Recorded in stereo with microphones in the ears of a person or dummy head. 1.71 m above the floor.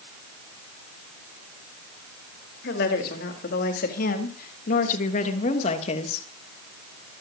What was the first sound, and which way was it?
A woman speaking, 65° left (ahead or behind).